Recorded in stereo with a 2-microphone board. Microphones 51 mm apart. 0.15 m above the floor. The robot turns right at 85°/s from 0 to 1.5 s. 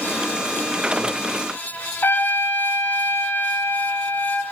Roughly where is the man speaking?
No man speaking in this recording.